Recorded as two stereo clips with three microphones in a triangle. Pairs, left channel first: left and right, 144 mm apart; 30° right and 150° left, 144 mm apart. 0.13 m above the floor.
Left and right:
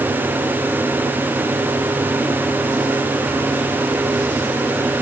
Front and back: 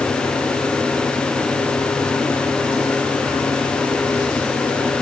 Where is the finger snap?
No finger snap in this recording.